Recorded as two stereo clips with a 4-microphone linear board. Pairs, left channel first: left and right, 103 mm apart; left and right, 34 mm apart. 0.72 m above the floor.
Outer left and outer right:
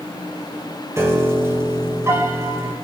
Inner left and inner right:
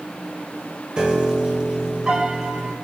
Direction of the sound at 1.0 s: 25° right (ahead or behind).